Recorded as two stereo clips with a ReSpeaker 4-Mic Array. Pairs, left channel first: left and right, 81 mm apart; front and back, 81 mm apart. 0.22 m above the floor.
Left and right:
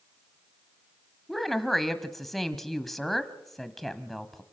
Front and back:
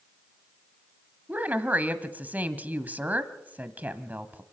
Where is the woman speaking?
170° left, 1.2 m.